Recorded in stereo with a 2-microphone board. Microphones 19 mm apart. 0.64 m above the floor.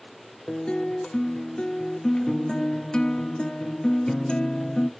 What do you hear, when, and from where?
0.5 s a guitar: 45° left (ahead or behind), 0.7 m